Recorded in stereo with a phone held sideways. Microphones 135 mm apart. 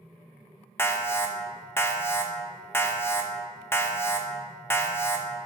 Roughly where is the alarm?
Centre.